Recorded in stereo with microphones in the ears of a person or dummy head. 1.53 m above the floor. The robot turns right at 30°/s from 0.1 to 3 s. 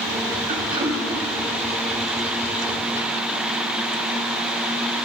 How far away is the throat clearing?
About 2 m.